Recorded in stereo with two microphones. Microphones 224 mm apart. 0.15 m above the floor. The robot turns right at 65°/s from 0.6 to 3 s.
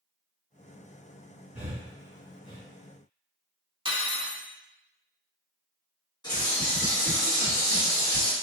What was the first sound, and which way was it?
Breathing, 15° right (ahead or behind).